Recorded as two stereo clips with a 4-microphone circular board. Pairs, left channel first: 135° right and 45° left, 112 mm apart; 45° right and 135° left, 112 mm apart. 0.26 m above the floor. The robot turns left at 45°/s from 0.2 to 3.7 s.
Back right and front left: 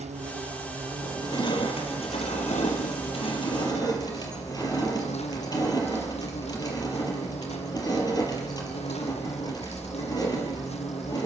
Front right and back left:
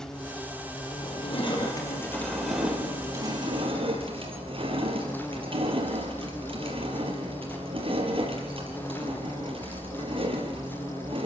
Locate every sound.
0.0 s an insect: 40° left, 1.7 m; by 11.3 s 120° right, 1.7 m
1.0 s crushing: 70° right, 4.5 m; by 11.3 s 170° left, 4.5 m